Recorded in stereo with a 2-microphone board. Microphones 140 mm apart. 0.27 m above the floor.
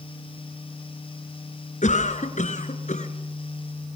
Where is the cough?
55° left (ahead or behind), 3 m.